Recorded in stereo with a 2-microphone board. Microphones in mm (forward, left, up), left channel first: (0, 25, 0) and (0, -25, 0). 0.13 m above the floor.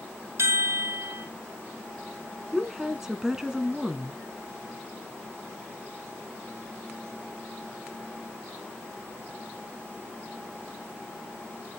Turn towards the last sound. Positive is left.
turn(degrees=-15)  # may be behind; listen again after turning